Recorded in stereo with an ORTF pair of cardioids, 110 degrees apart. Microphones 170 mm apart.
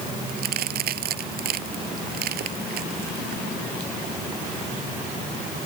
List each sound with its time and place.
0.3 s a crack: 65° right